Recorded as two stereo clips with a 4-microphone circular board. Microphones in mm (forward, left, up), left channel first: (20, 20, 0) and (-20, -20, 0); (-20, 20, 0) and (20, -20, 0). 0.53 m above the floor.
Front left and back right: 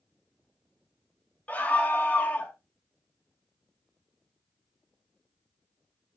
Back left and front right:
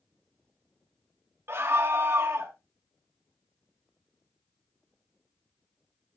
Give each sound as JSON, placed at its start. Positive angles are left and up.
{"t": 1.5, "sound": "a scream", "azimuth_deg": -15, "distance_m": 2.0}